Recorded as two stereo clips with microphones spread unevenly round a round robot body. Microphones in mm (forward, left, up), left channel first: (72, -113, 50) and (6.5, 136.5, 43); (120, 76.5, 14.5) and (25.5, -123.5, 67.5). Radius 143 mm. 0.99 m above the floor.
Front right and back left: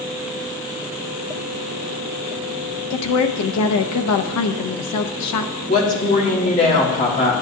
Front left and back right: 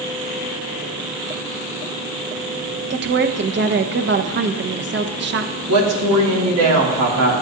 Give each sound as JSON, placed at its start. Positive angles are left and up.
{"t": 2.9, "sound": "a woman speaking", "azimuth_deg": -70, "distance_m": 0.8}
{"t": 5.7, "sound": "a woman speaking", "azimuth_deg": -140, "distance_m": 1.8}